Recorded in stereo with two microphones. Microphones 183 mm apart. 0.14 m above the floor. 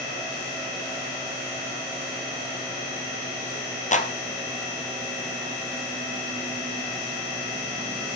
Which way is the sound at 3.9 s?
40° left (ahead or behind).